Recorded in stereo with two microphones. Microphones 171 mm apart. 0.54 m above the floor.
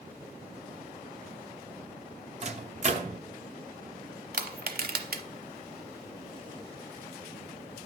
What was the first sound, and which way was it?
A microwave, 45° right (ahead or behind).